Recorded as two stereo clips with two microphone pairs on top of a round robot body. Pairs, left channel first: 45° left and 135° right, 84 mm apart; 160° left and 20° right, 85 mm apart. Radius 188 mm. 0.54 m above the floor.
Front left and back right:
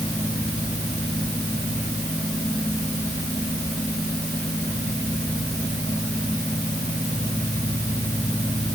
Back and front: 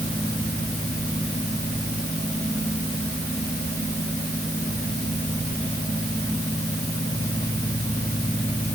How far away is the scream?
No scream in this recording.